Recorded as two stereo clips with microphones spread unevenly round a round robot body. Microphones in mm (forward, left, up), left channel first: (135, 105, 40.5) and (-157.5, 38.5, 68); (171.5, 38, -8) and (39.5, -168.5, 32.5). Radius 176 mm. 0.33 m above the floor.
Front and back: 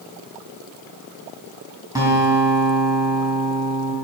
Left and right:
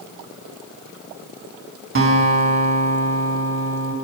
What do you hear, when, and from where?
1.9 s a guitar: 85° right, 3 m